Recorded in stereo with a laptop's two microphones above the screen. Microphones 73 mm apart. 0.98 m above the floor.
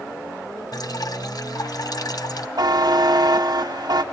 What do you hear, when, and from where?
0.7 s dripping: 60° left (ahead or behind), 1.5 m
2.6 s a buzzer: 65° right (ahead or behind), 1.1 m